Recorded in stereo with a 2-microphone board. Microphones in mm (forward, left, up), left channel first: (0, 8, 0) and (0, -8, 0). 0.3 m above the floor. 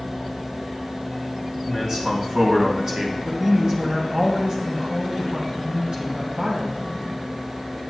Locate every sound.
1.7 s a man speaking: 40° right (ahead or behind), 2.5 m
3.2 s a woman speaking: 50° right (ahead or behind), 1.9 m